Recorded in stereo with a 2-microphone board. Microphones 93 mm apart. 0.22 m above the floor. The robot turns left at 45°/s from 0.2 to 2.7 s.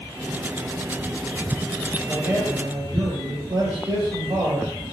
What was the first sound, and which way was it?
A man speaking, 20° right (ahead or behind).